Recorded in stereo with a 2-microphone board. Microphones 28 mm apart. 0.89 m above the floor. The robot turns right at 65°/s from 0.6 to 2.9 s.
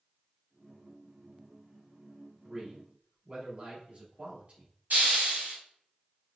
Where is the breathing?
I don't hear breathing.